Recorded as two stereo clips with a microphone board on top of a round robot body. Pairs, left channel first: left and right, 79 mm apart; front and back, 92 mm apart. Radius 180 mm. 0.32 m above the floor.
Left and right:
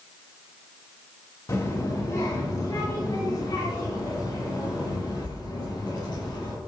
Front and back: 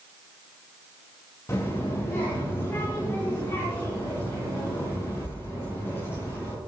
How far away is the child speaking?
About 2.5 m.